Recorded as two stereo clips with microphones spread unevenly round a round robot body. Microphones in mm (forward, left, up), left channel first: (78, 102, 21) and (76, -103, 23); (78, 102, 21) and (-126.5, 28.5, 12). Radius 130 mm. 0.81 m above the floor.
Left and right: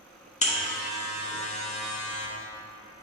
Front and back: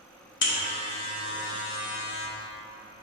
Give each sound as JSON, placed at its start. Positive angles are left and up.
{"t": 0.4, "sound": "a buzzer", "azimuth_deg": 40, "distance_m": 1.0}